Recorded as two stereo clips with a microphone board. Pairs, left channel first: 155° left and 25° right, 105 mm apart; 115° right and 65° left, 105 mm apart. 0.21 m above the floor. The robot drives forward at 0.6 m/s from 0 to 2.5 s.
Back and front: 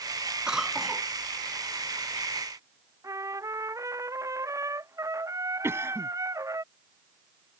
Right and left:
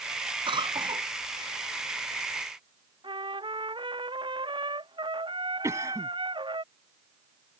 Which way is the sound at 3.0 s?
35° left.